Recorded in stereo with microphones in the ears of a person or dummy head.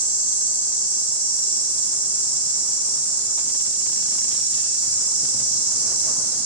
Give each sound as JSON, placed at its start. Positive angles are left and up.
{"t": 0.0, "sound": "an insect", "side_deg": -5, "distance_m": 1.0}